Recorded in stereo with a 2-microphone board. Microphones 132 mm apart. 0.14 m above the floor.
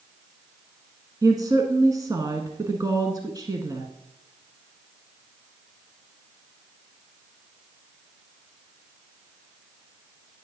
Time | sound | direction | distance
1.2 | a woman speaking | 30° right (ahead or behind) | 1.1 m